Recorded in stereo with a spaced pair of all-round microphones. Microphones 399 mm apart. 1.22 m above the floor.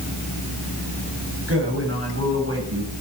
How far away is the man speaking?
About 9 m.